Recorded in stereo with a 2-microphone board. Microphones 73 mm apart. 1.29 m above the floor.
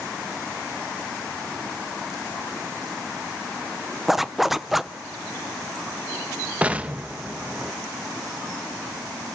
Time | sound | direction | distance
4.1 | a zipper | 5° right (ahead or behind) | 0.6 m
6.6 | an explosion | 20° right (ahead or behind) | 0.9 m